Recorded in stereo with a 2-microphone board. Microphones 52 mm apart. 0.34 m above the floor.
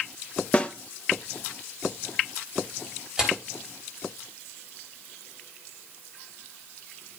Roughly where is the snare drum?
Left.